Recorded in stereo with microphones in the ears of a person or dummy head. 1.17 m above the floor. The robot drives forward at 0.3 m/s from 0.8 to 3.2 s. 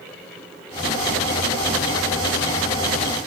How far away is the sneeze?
No sneeze in this recording.